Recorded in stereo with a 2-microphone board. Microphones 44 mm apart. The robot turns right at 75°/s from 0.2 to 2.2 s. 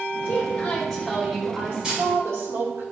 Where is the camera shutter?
20° right (ahead or behind), 3.5 m; by 2.0 s 5° right (ahead or behind), 3.5 m.